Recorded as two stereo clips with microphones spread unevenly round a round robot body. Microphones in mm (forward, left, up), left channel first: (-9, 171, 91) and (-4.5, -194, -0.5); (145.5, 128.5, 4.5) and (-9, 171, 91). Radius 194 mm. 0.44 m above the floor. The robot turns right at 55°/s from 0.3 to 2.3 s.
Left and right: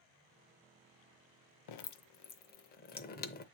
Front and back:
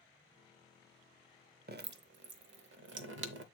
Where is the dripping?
125° left, 0.7 m; by 3.4 s 160° left, 0.7 m.